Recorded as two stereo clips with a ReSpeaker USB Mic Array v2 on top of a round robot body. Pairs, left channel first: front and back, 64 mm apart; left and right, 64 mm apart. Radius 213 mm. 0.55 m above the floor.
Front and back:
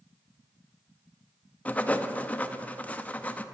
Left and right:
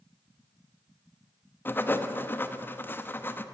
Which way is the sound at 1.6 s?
55° left.